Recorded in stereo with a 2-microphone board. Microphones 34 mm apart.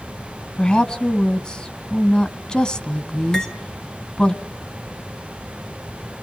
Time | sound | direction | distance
0.6 | a woman speaking | 30° left (ahead or behind) | 1.3 m
3.3 | cutlery clinking | 20° left (ahead or behind) | 2 m